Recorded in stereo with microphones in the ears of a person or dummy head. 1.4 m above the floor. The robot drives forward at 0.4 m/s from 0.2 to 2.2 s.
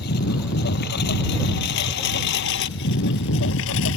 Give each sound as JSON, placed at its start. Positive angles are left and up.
{"t": 0.0, "sound": "a lawn mower", "side_deg": 60}